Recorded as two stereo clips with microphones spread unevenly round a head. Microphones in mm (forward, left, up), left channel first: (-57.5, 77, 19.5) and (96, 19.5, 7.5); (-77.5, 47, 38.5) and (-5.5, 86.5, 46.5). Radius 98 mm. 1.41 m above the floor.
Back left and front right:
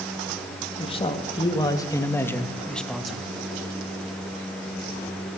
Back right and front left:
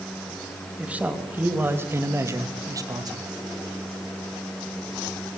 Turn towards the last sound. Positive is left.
turn(degrees=65)